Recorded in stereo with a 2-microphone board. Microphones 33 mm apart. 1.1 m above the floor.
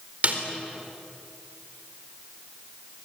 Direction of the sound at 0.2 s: 45° right (ahead or behind).